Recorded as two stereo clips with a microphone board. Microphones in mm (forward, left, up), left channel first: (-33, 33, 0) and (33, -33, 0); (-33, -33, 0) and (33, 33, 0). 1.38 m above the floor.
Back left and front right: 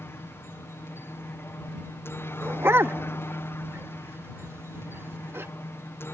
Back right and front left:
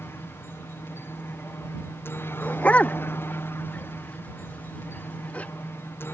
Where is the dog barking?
75° right.